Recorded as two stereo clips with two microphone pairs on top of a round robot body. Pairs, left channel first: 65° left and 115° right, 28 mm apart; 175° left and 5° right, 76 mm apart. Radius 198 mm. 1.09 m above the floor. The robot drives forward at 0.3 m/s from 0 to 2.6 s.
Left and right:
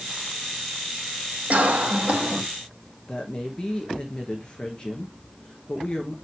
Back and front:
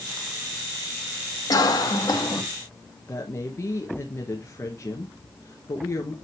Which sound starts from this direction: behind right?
A cough, at 1.5 s.